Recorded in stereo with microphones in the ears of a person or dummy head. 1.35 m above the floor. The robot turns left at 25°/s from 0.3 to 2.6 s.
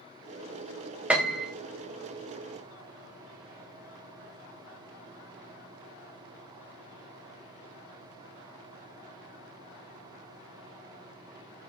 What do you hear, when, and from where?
1.1 s a piano: 5° right (ahead or behind), 0.5 m; by 1.5 s centre (ahead or behind), 0.5 m